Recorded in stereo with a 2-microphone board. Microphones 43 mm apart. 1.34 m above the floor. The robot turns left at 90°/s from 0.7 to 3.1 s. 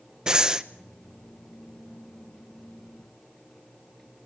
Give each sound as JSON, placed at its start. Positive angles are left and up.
{"t": 0.3, "sound": "breathing", "side_deg": -20, "distance_m": 0.9}